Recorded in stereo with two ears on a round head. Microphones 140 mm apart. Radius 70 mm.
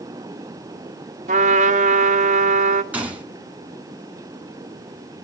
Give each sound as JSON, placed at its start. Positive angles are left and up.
{"t": 1.3, "sound": "a trumpet", "side_deg": -50, "distance_m": 1.8}
{"t": 2.9, "sound": "a gunshot", "side_deg": -10, "distance_m": 2.5}